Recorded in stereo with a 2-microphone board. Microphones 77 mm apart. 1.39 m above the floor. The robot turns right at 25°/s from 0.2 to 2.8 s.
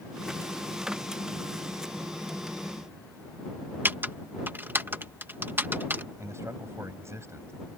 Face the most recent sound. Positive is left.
turn(degrees=-35)  # may be behind; listen again after turning